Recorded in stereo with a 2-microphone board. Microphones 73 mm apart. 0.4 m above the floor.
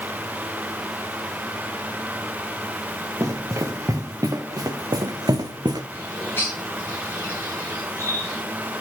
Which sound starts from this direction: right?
Running footsteps, at 3.2 s.